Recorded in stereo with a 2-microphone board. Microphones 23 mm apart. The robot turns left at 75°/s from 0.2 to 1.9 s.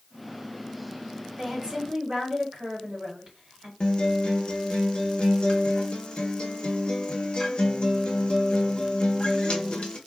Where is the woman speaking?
30° right, 1.7 m; by 3.7 s 70° right, 1.7 m.